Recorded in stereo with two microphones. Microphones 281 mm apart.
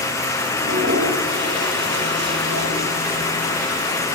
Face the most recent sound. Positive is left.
turn(degrees=-45)  # may be behind; listen again after turning